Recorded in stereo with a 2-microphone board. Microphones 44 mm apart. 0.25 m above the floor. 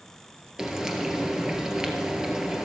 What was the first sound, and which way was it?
Frying, 15° right (ahead or behind).